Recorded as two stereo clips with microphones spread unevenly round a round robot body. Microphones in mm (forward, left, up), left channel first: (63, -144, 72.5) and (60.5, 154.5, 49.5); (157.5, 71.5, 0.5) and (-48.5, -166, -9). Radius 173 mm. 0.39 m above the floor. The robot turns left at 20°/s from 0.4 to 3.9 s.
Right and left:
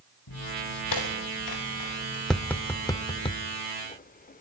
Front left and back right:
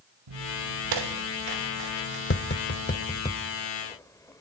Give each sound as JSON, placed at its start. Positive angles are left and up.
{"t": 0.3, "sound": "footsteps", "azimuth_deg": -130, "distance_m": 3.0}
{"t": 2.3, "sound": "tapping", "azimuth_deg": 0, "distance_m": 0.9}